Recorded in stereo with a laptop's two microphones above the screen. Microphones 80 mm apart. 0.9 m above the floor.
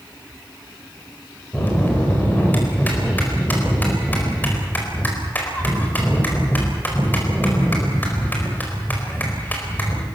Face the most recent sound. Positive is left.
turn(degrees=20)  # may be behind; listen again after turning